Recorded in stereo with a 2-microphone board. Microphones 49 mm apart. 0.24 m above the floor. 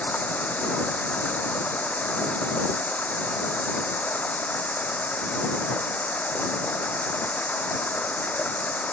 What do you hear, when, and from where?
0.0 s running water: 30° left (ahead or behind)